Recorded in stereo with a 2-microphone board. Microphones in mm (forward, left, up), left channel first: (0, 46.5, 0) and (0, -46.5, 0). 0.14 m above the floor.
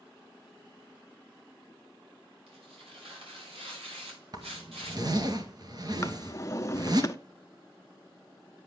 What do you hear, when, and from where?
2.5 s tearing paper: 85° right, 6.5 m
4.3 s a zipper: 45° right (ahead or behind), 1.8 m
6.0 s a drawer: 35° left (ahead or behind), 0.7 m